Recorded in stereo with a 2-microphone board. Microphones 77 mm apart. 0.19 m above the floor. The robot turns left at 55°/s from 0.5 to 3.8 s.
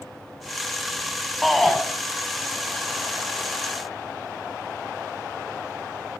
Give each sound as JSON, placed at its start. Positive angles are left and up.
{"t": 1.4, "sound": "a shout", "side_deg": 0, "distance_m": 1.1}